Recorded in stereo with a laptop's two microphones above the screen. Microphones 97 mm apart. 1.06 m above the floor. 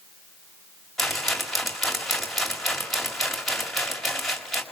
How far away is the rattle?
About 1.9 m.